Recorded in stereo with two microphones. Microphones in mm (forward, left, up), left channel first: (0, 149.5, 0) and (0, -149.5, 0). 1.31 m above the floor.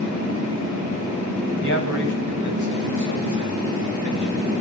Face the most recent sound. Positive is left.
turn(degrees=-75)  # may be behind; listen again after turning